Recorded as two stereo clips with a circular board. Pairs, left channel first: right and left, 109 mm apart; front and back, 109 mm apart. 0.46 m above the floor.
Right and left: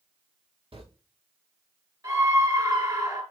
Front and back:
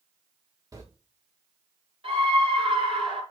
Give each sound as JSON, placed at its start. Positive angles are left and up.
{"t": 0.7, "sound": "footsteps", "azimuth_deg": 125, "distance_m": 3.5}
{"t": 2.0, "sound": "a scream", "azimuth_deg": 145, "distance_m": 6.0}